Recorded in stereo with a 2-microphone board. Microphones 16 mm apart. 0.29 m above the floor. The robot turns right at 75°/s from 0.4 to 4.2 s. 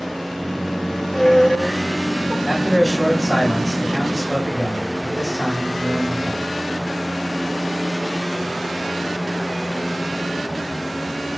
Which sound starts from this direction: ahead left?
A squeak, at 0.9 s.